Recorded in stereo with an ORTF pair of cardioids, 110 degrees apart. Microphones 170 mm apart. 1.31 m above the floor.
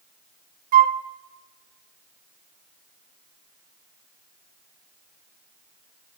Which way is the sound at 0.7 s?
55° right.